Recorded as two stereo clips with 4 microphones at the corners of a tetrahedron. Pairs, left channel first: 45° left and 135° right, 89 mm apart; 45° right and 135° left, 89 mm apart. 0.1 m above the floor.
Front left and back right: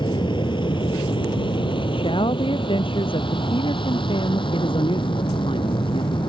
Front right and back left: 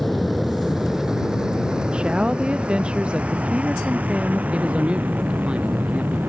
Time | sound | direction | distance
0.0 | an aircraft | 45° left | ?
1.9 | a woman speaking | 55° left | ?
4.5 | a man speaking | 60° left | ?